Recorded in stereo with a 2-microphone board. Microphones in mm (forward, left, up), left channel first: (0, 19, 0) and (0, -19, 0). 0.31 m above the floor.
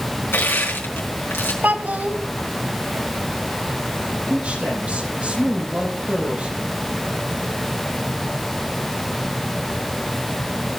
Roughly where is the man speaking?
Right.